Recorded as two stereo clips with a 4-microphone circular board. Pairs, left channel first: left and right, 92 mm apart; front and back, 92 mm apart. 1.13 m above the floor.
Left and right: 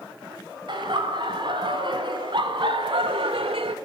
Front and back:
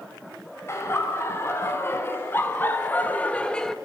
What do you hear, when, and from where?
0.7 s laughter: 60° right, 5.5 m; by 3.8 s 85° right, 1.2 m